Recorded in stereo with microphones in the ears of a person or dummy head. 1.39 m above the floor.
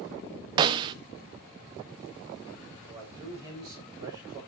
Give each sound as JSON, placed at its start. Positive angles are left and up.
{"t": 0.6, "sound": "a snare drum", "side_deg": -30, "distance_m": 0.6}
{"t": 2.9, "sound": "a man speaking", "side_deg": -25, "distance_m": 7.5}